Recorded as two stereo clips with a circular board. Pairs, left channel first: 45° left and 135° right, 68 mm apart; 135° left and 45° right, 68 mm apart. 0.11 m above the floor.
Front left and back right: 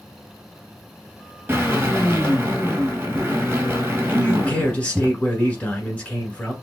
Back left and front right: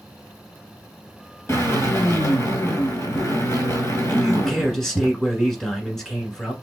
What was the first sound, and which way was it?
A drill, 170° left.